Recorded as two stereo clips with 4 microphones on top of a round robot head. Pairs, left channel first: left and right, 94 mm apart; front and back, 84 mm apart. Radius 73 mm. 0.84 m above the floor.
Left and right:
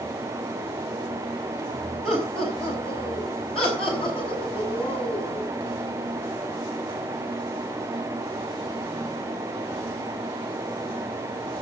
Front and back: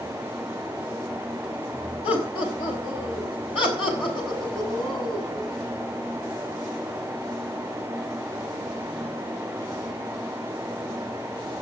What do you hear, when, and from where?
2.0 s laughter: straight ahead, 4.5 m; by 5.5 s 10° left, 6 m